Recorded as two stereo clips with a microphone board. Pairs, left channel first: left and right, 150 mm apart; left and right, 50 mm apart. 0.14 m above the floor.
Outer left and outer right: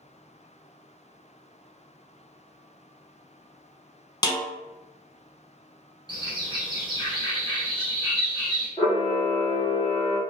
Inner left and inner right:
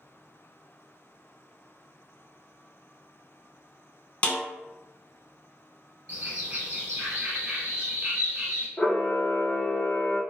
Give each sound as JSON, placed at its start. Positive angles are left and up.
{"t": 4.2, "sound": "a snare drum", "side_deg": 25, "distance_m": 0.6}
{"t": 6.1, "sound": "a bird", "side_deg": -35, "distance_m": 1.3}
{"t": 8.8, "sound": "a camera shutter", "side_deg": 30, "distance_m": 1.0}